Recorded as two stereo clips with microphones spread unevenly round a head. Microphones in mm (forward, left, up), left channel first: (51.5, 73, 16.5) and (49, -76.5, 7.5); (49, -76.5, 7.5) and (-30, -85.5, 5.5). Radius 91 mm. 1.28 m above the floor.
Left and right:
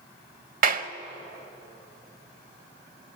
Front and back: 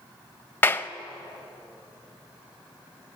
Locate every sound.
0.6 s a clap: 60° right, 0.9 m